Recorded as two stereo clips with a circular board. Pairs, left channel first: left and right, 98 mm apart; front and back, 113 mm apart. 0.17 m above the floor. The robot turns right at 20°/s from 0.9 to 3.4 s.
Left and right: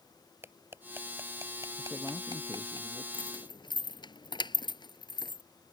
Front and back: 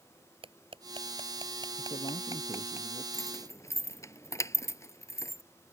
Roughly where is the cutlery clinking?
Behind right.